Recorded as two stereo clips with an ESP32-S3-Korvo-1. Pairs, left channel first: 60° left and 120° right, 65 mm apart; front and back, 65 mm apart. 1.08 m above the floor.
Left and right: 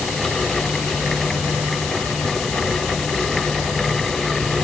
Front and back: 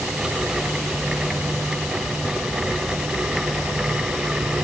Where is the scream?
No scream in this recording.